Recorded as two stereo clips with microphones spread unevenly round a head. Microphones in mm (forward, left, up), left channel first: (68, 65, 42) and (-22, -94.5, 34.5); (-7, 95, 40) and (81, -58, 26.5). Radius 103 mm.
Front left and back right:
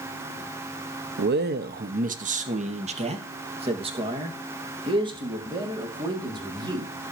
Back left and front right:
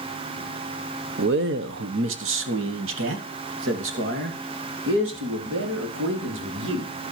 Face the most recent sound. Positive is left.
turn(degrees=-50)